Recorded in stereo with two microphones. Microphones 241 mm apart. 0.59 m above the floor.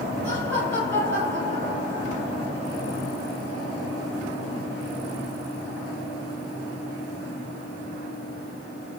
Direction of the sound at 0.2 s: 45° right (ahead or behind).